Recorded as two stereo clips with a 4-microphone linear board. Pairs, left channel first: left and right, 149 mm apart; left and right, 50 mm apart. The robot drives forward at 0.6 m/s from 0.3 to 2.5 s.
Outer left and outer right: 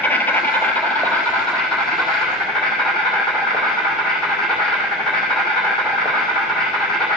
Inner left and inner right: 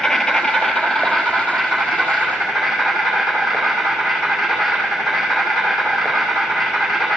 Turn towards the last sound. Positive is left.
turn(degrees=5)  # may be behind; listen again after turning